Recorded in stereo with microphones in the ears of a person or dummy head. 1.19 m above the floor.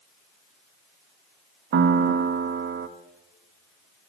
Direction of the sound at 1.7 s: 60° right (ahead or behind).